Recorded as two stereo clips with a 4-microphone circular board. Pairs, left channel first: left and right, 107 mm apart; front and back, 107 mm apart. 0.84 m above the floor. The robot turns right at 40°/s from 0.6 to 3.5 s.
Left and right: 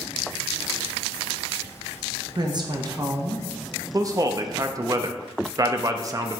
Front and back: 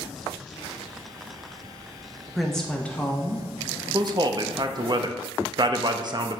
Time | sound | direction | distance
2.4 | a woman speaking | 95° right | 0.9 m
3.9 | a man speaking | 140° right | 0.6 m